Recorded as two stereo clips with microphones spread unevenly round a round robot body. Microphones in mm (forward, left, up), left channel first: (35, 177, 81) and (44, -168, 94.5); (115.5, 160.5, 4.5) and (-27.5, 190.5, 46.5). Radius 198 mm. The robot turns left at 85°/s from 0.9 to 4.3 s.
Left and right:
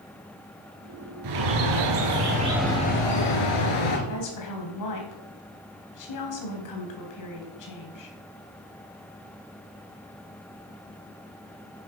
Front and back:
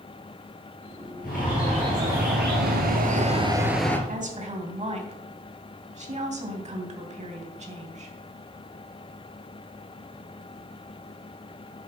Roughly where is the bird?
Ahead right.